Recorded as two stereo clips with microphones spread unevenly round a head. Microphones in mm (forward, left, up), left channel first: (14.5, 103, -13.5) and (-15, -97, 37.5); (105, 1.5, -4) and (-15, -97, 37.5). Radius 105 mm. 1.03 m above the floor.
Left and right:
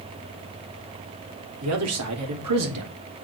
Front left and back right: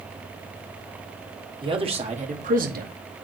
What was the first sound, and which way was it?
A man speaking, 80° right.